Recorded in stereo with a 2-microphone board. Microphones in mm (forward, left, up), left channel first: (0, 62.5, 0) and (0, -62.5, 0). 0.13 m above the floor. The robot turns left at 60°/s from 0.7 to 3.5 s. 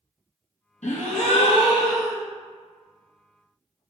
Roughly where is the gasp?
Left.